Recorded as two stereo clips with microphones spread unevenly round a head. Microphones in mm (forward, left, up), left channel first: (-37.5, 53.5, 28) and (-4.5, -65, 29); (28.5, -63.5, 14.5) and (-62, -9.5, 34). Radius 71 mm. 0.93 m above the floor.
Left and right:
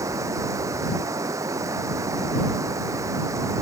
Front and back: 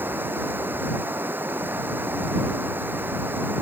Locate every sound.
0.0 s running water: 140° right